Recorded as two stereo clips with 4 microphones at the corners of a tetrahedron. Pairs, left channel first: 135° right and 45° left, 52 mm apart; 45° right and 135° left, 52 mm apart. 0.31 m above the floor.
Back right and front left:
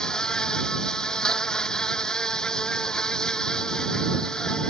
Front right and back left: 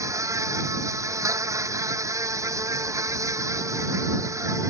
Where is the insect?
150° left.